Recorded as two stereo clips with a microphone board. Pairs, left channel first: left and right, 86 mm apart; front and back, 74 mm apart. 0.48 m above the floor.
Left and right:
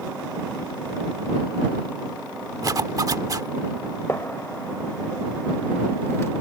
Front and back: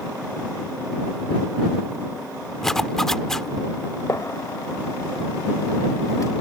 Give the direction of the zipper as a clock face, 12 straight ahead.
3 o'clock.